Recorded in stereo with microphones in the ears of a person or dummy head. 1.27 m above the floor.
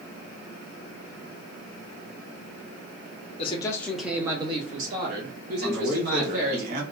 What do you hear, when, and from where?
3.4 s a man speaking: 35° left (ahead or behind), 0.6 m; by 6.6 s 65° right (ahead or behind), 1.5 m
5.6 s a man speaking: 50° right (ahead or behind), 1.3 m